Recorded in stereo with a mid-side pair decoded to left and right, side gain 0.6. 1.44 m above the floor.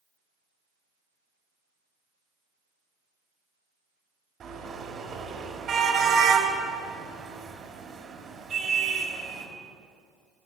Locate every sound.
4.4 s a car horn: 45° right, 4 m